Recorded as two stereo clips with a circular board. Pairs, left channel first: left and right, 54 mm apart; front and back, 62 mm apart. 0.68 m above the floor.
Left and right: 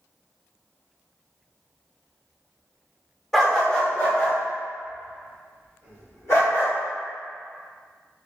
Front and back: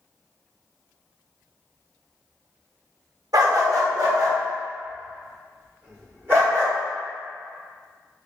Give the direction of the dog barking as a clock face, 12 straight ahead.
6 o'clock.